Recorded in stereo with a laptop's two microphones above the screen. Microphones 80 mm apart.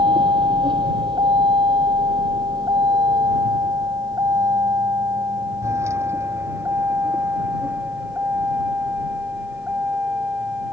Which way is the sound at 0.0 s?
85° right.